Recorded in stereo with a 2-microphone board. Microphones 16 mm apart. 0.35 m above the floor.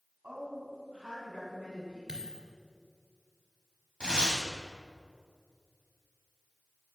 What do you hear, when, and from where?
0.2 s a woman speaking: 65° right (ahead or behind), 3.5 m
2.1 s a dropped coin: 45° right (ahead or behind), 2.5 m
4.0 s tearing paper: 60° left (ahead or behind), 2.5 m